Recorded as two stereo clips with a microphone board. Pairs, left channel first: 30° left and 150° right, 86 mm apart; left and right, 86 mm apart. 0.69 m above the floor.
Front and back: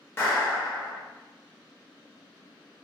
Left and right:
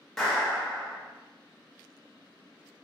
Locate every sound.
0.2 s a clap: 10° left, 0.8 m